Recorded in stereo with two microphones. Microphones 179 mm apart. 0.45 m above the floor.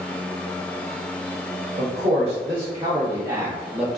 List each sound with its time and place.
1.8 s a man speaking: 30° right (ahead or behind), 1.3 m; by 4.0 s centre (ahead or behind), 0.7 m